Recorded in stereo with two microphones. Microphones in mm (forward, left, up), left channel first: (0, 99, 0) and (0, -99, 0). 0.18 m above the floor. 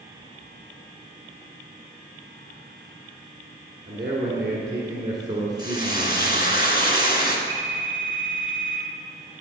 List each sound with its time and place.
3.9 s a man speaking: 20° right (ahead or behind), 1.9 m
5.6 s frying: 50° left (ahead or behind), 1.9 m
7.5 s a phone ringing: 25° left (ahead or behind), 3.5 m